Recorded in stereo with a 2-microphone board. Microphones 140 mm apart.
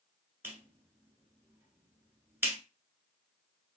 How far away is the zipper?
I don't hear a zipper.